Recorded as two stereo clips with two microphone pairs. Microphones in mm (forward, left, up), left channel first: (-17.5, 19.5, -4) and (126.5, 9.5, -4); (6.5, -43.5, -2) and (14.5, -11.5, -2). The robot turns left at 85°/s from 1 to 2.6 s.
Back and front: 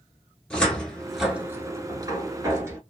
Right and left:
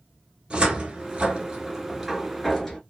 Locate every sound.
0.5 s a cupboard door: 90° left, 0.9 m; by 2.8 s 45° right, 0.9 m